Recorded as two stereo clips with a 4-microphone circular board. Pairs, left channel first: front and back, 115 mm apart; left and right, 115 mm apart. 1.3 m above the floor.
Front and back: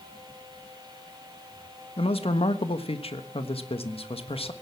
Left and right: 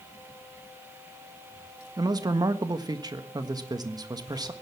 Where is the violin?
I don't hear a violin.